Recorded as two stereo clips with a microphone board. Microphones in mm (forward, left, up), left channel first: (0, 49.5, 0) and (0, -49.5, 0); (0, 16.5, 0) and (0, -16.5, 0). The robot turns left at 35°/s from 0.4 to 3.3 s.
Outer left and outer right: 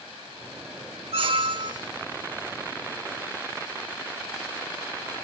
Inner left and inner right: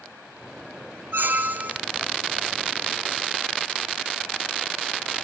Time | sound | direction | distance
1.1 | a squeak | 65° right (ahead or behind) | 0.8 m